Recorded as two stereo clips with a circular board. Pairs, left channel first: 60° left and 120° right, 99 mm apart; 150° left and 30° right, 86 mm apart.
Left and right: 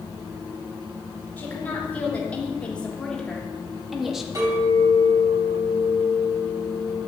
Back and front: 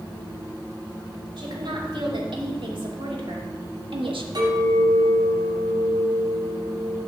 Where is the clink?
65° right, 5.5 m.